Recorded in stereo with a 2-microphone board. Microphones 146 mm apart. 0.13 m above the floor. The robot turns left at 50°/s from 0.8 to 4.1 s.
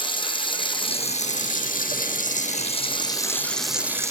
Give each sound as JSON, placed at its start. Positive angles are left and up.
{"t": 0.0, "sound": "running water", "azimuth_deg": 145, "distance_m": 3.0}